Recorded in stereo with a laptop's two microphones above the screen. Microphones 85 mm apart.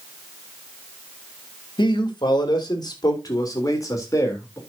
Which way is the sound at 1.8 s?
60° left (ahead or behind).